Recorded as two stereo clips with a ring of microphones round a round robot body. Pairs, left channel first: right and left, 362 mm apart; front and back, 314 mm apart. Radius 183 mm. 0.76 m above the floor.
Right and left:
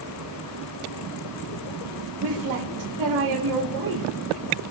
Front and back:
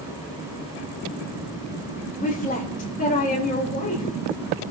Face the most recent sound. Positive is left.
turn(degrees=60)